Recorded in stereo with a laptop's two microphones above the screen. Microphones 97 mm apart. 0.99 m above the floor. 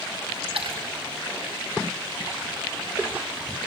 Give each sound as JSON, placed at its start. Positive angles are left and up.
{"t": 0.5, "sound": "a splash", "side_deg": -85, "distance_m": 4.5}